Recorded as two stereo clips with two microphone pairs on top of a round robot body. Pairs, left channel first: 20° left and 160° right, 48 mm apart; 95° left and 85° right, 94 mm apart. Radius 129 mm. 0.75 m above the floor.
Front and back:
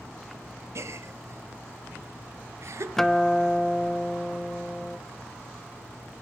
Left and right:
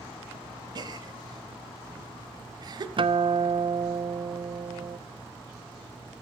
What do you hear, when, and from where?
0.8 s a gasp: 125° right, 1.3 m
3.0 s a guitar: 70° right, 0.9 m